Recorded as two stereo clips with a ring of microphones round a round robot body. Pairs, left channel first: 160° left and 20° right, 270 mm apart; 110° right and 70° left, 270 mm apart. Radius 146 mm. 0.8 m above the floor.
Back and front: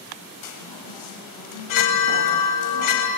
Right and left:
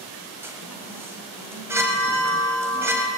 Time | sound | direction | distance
0.4 | a chime | 150° left | 3.5 m